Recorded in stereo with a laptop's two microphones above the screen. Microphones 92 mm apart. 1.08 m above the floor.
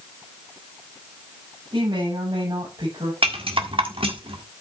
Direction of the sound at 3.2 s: 80° right.